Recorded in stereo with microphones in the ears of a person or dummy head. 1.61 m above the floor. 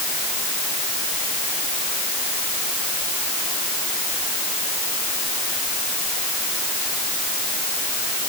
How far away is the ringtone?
No ringtone in this recording.